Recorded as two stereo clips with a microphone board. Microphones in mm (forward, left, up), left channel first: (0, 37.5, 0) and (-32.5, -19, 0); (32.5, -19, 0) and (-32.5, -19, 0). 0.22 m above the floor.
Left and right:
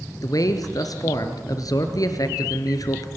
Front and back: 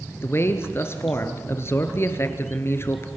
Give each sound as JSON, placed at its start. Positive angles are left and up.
{"t": 0.2, "sound": "a man speaking", "azimuth_deg": 45, "distance_m": 3.0}